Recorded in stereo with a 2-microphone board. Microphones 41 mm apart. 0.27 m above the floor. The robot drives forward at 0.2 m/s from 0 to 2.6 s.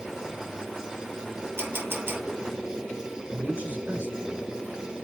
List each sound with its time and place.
1.6 s a camera shutter: 75° right (ahead or behind), 3 m; by 2.2 s 80° right, 3 m
3.3 s a man speaking: 60° right (ahead or behind), 4 m